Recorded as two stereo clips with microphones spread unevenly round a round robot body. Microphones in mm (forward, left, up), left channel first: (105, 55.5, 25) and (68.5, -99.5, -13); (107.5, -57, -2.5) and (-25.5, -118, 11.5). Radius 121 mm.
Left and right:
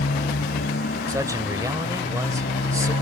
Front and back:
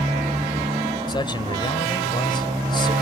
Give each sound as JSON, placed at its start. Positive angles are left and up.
{"t": 0.0, "sound": "a motorcycle", "azimuth_deg": 130}
{"t": 1.1, "sound": "a man speaking", "azimuth_deg": -35}